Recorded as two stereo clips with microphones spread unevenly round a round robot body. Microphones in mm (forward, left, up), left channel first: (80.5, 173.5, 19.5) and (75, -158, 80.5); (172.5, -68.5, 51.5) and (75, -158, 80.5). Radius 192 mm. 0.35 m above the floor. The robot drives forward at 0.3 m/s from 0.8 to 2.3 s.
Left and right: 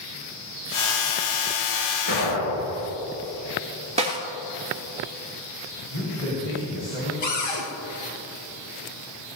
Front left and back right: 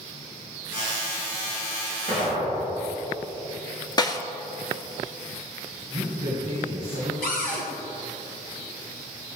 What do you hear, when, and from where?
2.1 s an explosion: 95° left, 4.5 m
4.0 s a snare drum: 20° right, 1.9 m
5.9 s a man speaking: 150° left, 3.5 m
7.2 s a cupboard door: 50° left, 2.5 m